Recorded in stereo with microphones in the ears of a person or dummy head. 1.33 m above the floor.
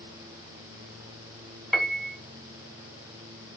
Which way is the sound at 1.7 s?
5° right (ahead or behind).